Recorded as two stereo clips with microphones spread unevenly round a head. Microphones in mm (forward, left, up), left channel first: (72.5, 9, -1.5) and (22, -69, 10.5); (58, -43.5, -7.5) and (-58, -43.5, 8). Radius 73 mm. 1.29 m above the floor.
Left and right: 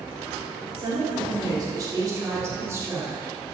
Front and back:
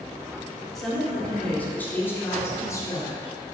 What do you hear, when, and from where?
0.8 s a woman speaking: 90° right, 3.5 m; by 3.3 s 55° right, 3.5 m